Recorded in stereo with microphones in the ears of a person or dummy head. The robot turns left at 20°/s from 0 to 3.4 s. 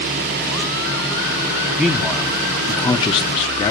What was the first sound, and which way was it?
A man speaking, straight behind.